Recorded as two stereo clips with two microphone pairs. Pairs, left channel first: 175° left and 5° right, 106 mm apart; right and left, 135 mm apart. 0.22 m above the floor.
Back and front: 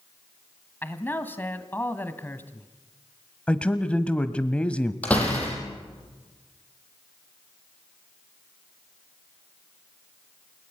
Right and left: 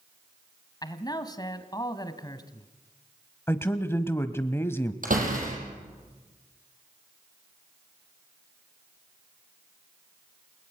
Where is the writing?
I don't hear writing.